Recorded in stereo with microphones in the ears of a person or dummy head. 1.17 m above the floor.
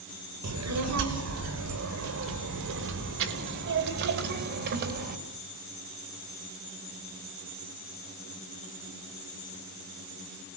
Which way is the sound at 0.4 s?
85° right.